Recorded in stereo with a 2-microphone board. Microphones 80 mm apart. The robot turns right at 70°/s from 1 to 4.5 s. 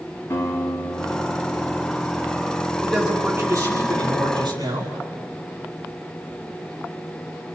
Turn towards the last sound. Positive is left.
turn(degrees=-75)